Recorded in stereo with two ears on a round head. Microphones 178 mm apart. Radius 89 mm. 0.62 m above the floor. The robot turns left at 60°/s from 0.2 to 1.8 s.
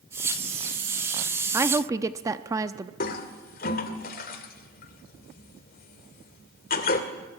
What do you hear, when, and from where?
1.5 s a woman speaking: 10° right (ahead or behind), 0.7 m; by 2.9 s 15° right (ahead or behind), 0.7 m
3.0 s a toilet flushing: 45° left (ahead or behind), 2.5 m